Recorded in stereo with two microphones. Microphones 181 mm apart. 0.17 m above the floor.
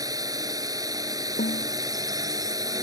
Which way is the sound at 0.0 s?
20° right (ahead or behind).